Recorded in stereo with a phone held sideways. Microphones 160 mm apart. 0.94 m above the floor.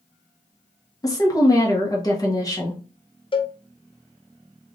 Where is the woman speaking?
20° left (ahead or behind), 1.3 m.